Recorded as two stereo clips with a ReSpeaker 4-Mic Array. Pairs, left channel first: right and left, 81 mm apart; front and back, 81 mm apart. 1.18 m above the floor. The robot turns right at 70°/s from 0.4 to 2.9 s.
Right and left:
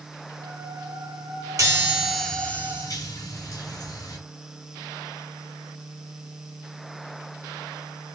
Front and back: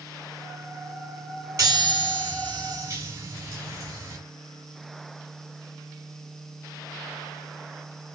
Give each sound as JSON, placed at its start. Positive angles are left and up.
{"t": 1.6, "sound": "a chime", "azimuth_deg": 135, "distance_m": 6.5}